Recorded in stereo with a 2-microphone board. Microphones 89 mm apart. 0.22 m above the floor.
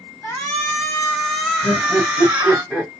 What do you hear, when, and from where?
0.2 s a shout: 20° left (ahead or behind), 1.6 m; by 2.6 s 15° right (ahead or behind), 1.6 m
1.6 s laughter: centre (ahead or behind), 1.4 m